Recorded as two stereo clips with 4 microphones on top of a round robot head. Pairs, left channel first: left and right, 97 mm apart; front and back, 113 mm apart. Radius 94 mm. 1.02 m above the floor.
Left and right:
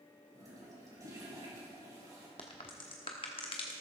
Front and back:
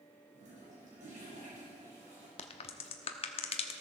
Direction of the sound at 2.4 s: 30° left.